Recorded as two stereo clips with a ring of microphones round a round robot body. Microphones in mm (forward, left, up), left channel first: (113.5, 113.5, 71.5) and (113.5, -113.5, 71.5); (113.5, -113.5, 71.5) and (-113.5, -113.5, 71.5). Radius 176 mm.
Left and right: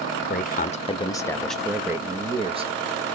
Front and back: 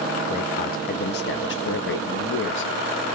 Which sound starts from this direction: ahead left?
A man speaking, at 0.2 s.